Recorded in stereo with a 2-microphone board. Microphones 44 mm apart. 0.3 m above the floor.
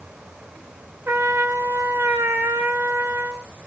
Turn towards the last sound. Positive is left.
turn(degrees=-75)  # may be behind; listen again after turning